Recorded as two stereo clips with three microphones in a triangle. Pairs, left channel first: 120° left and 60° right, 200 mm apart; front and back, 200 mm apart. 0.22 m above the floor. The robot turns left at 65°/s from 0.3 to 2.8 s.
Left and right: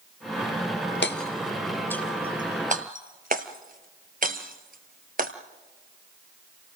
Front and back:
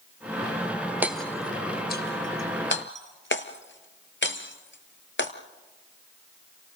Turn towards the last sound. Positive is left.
turn(degrees=-15)